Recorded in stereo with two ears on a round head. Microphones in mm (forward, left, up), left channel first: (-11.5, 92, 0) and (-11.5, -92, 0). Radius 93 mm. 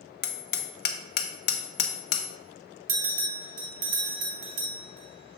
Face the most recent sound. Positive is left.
turn(degrees=-45)  # may be behind; listen again after turning